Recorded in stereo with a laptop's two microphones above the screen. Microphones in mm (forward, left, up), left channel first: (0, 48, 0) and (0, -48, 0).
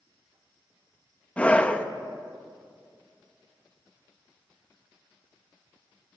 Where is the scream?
15° left (ahead or behind), 1.0 m.